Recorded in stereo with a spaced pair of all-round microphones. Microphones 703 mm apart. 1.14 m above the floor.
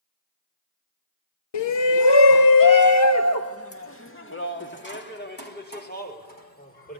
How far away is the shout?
About 0.5 m.